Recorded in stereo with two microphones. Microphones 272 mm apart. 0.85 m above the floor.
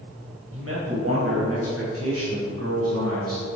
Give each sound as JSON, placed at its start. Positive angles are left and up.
{"t": 0.5, "sound": "a man speaking", "side_deg": -55, "distance_m": 4.0}